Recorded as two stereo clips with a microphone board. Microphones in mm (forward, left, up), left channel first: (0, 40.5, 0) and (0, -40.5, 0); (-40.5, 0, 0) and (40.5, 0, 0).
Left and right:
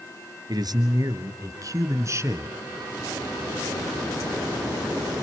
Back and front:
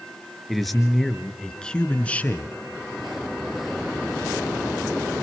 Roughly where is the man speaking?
Right.